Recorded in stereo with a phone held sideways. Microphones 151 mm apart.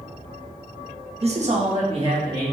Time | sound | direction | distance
1.2 | a man speaking | 40° right (ahead or behind) | 0.6 m